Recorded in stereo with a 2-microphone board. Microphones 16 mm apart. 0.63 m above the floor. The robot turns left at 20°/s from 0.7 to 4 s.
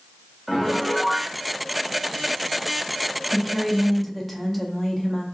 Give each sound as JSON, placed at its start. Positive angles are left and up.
{"t": 0.5, "sound": "a piano", "side_deg": 5, "distance_m": 0.6}
{"t": 3.3, "sound": "a woman speaking", "side_deg": 15, "distance_m": 0.7}